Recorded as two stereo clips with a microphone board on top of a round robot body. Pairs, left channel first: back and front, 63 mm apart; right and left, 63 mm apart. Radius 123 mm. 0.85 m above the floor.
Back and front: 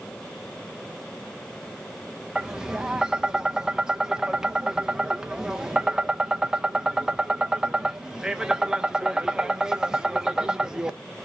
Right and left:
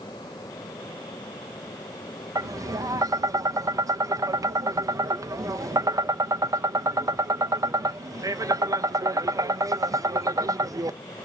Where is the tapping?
80° left, 0.6 m.